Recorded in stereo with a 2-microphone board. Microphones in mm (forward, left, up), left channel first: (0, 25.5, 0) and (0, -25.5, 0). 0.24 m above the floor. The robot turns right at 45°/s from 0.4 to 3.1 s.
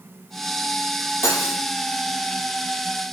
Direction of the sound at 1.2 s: 70° left (ahead or behind).